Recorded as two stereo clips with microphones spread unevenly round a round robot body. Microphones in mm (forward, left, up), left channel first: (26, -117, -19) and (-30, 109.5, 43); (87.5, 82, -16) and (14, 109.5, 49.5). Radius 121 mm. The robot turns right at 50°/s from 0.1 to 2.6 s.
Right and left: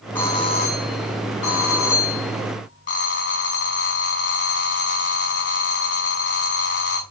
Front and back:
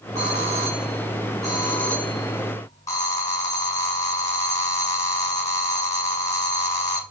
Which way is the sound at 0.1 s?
155° right.